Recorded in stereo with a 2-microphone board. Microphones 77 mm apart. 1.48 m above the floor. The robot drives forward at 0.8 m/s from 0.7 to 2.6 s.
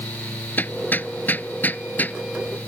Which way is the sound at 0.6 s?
25° left (ahead or behind).